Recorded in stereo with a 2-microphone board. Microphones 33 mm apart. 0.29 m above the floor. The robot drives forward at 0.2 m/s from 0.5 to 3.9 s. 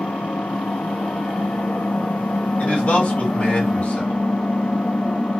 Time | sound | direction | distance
0.0 | an engine running | 60° left (ahead or behind) | 0.7 m
2.6 | a man speaking | 55° left (ahead or behind) | 2 m